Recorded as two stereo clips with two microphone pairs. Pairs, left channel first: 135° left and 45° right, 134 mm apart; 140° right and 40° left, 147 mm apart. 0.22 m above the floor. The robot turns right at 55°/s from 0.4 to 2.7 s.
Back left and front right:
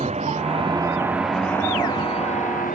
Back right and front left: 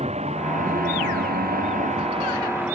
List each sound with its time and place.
0.0 s a vehicle: 5° right; by 2.8 s 120° left